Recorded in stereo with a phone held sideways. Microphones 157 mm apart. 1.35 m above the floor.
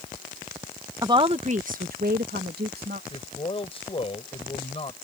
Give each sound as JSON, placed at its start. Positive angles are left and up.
{"t": 1.0, "sound": "a woman speaking", "side_deg": -25}
{"t": 3.1, "sound": "a man speaking", "side_deg": 40}